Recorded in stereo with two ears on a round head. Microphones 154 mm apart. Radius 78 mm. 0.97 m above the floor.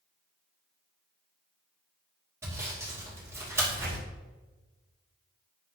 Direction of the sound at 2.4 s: 20° right (ahead or behind).